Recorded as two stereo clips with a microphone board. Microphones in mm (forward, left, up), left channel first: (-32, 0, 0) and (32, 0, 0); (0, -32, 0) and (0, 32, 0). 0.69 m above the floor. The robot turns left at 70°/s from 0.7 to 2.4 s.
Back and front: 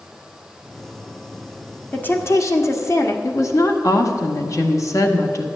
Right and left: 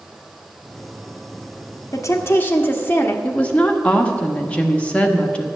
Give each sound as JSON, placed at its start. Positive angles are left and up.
{"t": 1.9, "sound": "a woman speaking", "azimuth_deg": -115, "distance_m": 1.3}
{"t": 3.2, "sound": "a woman speaking", "azimuth_deg": -160, "distance_m": 1.3}